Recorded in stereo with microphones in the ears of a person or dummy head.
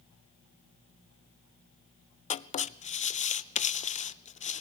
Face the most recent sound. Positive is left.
turn(degrees=40)  # may be behind; listen again after turning